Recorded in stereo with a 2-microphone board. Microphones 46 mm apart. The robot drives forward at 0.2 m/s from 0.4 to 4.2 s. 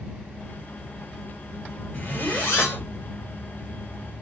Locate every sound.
1.9 s a zipper: 40° left (ahead or behind), 2 m; by 2.9 s 35° left (ahead or behind), 2.5 m